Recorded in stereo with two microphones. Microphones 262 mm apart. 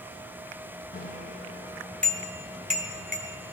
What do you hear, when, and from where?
0.9 s a bicycle bell: 35° left (ahead or behind), 2 m; by 3.5 s 60° right (ahead or behind), 1.8 m